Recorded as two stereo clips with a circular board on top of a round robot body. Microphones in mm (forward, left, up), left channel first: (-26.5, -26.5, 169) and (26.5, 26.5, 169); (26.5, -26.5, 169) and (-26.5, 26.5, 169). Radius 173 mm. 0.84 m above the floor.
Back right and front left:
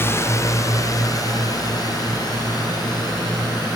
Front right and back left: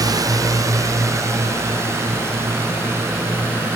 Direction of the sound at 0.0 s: 165° left.